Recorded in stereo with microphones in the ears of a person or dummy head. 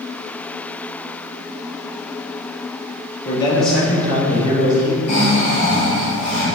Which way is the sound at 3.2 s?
35° left (ahead or behind).